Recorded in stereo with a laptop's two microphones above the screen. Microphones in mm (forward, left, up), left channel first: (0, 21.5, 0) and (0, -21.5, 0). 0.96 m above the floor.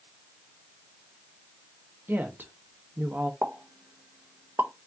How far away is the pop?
About 0.7 m.